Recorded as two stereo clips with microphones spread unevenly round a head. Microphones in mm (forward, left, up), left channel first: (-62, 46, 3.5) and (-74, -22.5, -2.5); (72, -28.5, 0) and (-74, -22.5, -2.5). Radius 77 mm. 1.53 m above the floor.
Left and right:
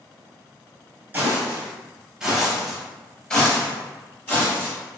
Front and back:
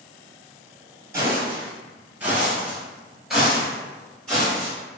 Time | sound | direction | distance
1.1 | footsteps | 135° right | 1.6 m